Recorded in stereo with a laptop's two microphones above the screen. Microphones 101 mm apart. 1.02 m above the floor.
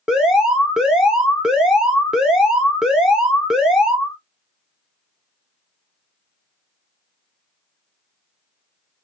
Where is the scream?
No scream in this recording.